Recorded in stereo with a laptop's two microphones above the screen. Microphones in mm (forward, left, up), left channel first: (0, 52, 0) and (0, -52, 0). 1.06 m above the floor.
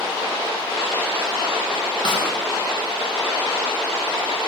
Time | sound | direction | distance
2.0 | a snare drum | 45° left (ahead or behind) | 1.1 m